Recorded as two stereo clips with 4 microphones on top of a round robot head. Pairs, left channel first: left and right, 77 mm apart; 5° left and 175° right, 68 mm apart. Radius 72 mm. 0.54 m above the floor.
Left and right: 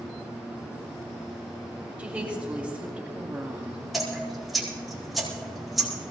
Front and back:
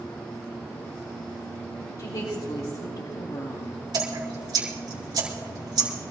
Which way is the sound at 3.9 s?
Straight behind.